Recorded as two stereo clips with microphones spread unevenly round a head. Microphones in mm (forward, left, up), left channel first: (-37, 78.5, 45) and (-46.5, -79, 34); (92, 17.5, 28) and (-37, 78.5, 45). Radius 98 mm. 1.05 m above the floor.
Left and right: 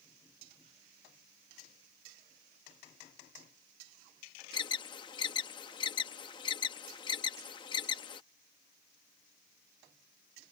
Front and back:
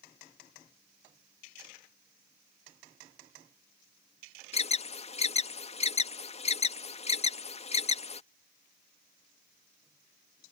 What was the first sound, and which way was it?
An alarm, 20° left.